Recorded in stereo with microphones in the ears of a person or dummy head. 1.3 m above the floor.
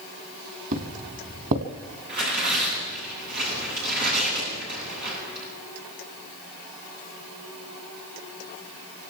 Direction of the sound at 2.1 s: 50° right (ahead or behind).